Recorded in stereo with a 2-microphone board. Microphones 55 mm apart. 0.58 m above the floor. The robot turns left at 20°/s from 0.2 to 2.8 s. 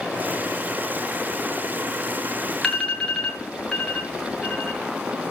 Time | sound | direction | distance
2.6 | an alarm | 10° left (ahead or behind) | 7 m